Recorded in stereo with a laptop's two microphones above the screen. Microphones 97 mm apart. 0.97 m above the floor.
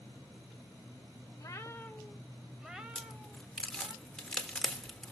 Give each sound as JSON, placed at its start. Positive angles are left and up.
{"t": 1.4, "sound": "a cat meowing", "side_deg": 40, "distance_m": 0.8}
{"t": 3.0, "sound": "a crack", "side_deg": 5, "distance_m": 1.6}